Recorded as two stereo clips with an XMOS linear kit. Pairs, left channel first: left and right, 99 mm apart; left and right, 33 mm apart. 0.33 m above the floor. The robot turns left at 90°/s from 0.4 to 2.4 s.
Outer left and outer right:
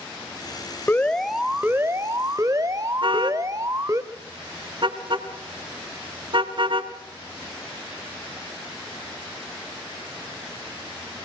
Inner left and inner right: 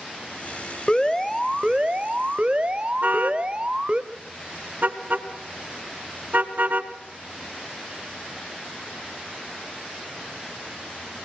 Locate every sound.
0.9 s an alarm: 40° left, 1.1 m; by 4.0 s 100° right, 1.1 m
3.0 s a car horn: 55° right (ahead or behind), 2 m